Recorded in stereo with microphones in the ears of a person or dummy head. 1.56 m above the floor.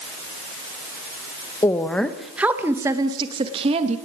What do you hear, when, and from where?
1.6 s a woman speaking: 15° left (ahead or behind), 2 m; by 4.0 s 35° right (ahead or behind), 3 m